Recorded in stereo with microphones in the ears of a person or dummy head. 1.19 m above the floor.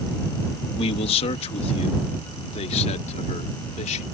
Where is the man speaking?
35° left (ahead or behind); by 4.0 s 40° left (ahead or behind).